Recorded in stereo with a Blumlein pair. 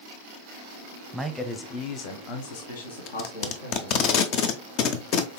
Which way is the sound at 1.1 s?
5° right.